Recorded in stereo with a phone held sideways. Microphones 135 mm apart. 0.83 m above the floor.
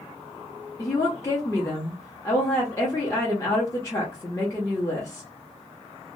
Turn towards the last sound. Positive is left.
turn(degrees=20)  # may be behind; listen again after turning